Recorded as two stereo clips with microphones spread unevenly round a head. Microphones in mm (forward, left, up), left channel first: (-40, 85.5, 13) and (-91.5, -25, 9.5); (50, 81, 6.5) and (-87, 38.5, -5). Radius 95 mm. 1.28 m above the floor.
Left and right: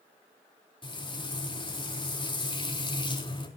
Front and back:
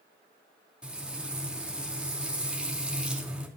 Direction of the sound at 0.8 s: 115° left.